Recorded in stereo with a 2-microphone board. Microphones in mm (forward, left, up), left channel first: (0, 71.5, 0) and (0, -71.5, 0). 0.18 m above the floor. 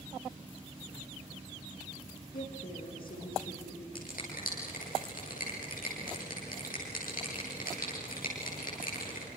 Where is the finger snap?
80° left, 8.5 m.